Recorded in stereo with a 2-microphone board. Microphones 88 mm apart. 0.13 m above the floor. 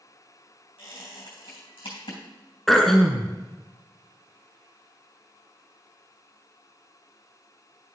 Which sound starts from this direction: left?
A squeak, at 0.8 s.